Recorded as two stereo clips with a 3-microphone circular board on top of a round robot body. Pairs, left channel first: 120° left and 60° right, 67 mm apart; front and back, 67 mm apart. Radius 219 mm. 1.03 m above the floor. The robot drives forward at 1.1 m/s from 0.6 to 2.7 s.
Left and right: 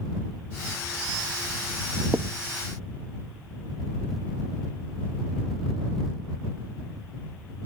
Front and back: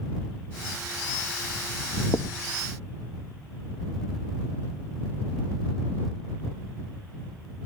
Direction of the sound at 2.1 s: 15° right.